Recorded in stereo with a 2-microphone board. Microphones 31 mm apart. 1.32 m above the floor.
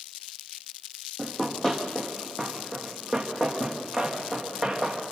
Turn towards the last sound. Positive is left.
turn(degrees=5)  # may be behind; listen again after turning